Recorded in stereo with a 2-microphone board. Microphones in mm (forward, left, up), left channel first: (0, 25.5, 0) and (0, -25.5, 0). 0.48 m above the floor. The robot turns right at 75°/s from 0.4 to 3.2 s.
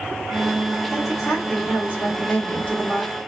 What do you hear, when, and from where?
0.9 s a woman speaking: 15° right, 1.4 m; by 3.1 s 155° left, 1.4 m